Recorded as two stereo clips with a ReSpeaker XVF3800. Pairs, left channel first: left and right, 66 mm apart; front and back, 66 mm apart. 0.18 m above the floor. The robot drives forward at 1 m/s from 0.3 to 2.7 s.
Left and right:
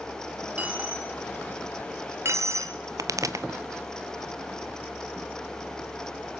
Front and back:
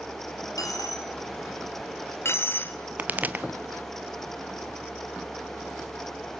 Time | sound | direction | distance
0.6 | a dropped coin | 25° right | 3 m
3.0 | a pop | 115° right | 1.0 m